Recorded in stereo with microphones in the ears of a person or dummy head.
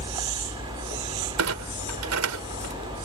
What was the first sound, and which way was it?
A vehicle, 25° right (ahead or behind).